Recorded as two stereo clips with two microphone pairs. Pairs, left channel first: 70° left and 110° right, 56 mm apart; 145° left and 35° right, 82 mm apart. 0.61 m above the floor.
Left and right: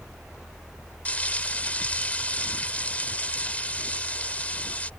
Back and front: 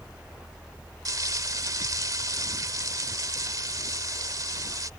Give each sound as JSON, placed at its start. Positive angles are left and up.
{"t": 1.1, "sound": "frying", "azimuth_deg": 10}